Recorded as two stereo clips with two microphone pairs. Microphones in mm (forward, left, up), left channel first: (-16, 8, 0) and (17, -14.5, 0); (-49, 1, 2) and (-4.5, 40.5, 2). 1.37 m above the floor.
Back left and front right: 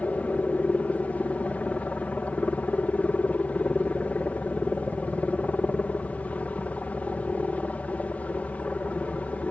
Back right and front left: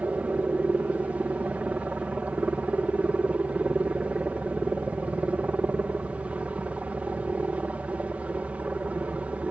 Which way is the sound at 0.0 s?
105° left.